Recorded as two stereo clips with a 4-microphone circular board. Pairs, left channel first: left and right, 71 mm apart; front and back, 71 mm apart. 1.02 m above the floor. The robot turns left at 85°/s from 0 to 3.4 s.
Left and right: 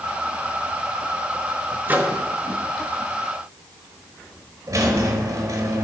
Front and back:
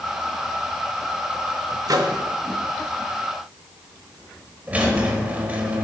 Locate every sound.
1.9 s a microwave: 150° right, 0.8 m; by 2.2 s straight behind, 0.8 m
4.7 s a squeak: 115° right, 1.3 m